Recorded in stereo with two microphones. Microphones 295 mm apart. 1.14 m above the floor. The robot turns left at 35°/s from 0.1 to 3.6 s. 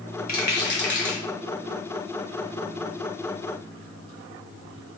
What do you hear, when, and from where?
0.3 s a rattle: 30° left (ahead or behind), 1.2 m; by 1.2 s 40° left (ahead or behind), 1.2 m